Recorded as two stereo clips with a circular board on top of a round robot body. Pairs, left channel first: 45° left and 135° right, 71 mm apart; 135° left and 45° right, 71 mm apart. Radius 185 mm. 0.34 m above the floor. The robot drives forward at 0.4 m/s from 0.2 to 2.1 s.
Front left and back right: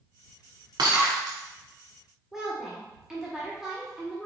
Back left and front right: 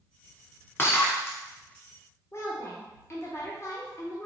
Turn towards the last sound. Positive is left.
turn(degrees=145)